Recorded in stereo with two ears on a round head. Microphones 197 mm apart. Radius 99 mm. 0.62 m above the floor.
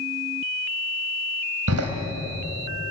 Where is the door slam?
80° right, 3 m.